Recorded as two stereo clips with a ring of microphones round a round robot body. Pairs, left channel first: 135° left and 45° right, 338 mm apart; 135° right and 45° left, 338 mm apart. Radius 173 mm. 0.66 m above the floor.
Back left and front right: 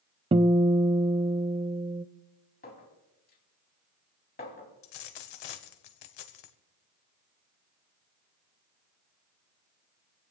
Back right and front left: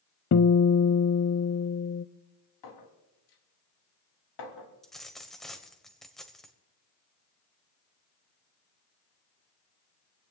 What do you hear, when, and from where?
0.3 s a guitar: 110° right, 0.7 m
2.6 s a clink: 160° right, 3.5 m
4.8 s a dropped coin: 135° left, 1.4 m